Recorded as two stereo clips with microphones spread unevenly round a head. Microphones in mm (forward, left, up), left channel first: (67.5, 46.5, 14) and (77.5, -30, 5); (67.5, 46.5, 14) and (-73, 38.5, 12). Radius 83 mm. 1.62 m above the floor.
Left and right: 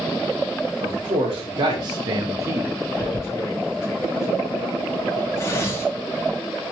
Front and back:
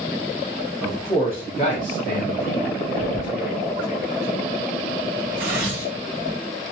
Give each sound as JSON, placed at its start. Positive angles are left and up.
{"t": 0.8, "sound": "a man speaking", "azimuth_deg": -70, "distance_m": 1.2}
{"t": 3.0, "sound": "tearing paper", "azimuth_deg": 40, "distance_m": 1.5}